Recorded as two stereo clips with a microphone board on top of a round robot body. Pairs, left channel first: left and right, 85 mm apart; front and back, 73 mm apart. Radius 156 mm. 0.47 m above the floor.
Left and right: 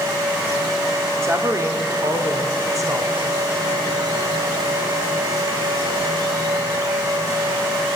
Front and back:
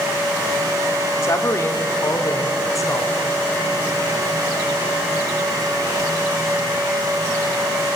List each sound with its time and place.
1.2 s a woman speaking: 40° right, 2 m; by 3.4 s 45° right, 3.5 m